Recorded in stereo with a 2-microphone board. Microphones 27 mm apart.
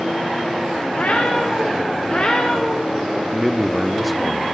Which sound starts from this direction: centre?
A man speaking, at 3.3 s.